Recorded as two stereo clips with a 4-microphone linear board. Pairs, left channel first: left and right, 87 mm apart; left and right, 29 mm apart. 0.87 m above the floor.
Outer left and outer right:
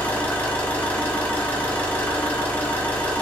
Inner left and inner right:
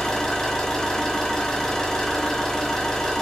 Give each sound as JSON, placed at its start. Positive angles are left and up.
{"t": 0.0, "sound": "an engine running", "side_deg": 20, "distance_m": 0.8}